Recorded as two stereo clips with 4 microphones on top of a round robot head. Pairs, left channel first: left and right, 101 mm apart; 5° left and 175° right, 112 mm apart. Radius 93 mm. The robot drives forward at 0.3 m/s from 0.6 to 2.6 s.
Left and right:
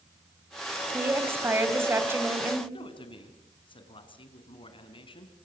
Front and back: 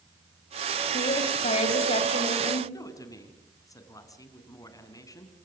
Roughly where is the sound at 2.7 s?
Ahead left.